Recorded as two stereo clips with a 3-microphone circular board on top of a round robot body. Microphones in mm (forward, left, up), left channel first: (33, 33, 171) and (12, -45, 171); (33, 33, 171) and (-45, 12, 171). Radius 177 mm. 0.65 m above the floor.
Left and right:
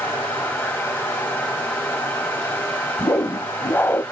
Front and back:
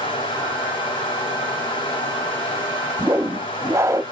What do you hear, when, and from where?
0.0 s running water: 10° left, 2.5 m
3.0 s a whoosh: 140° left, 0.8 m